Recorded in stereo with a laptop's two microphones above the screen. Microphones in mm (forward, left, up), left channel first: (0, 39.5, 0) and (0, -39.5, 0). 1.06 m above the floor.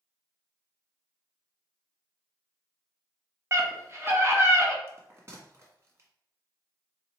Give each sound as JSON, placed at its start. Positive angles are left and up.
{"t": 3.5, "sound": "a scream", "side_deg": -30, "distance_m": 1.4}
{"t": 4.9, "sound": "a bell", "side_deg": -35, "distance_m": 1.5}